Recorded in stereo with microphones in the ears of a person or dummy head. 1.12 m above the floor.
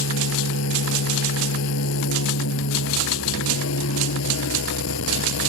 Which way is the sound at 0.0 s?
85° left.